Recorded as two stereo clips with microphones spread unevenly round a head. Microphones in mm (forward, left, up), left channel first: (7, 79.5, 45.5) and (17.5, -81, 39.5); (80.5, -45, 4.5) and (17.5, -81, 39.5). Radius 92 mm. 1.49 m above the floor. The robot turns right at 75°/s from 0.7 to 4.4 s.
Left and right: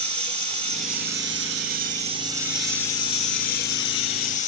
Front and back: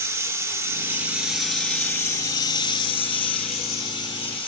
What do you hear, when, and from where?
0.0 s running water: 140° right, 2.5 m; by 4.5 s 135° left, 2.5 m